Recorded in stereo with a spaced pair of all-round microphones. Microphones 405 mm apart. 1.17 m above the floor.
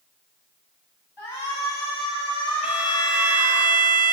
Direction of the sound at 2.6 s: 5° right (ahead or behind).